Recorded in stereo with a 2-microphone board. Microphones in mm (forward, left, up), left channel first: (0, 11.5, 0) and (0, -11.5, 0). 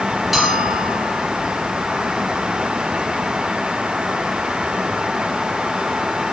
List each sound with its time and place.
0.3 s a bell: centre (ahead or behind), 3.5 m